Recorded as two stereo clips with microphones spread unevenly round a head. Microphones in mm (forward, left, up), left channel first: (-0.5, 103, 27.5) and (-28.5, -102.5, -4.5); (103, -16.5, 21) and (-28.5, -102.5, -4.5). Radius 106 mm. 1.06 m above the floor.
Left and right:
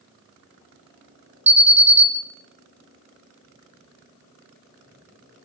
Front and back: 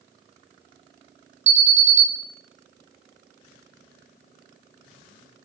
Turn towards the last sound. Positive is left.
turn(degrees=-160)